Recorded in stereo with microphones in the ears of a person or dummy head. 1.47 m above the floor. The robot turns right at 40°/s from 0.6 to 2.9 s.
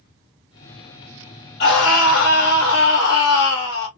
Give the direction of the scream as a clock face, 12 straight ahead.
10 o'clock.